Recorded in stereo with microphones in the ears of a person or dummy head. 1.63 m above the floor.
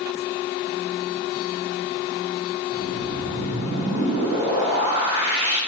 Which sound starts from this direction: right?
A whoosh, at 2.7 s.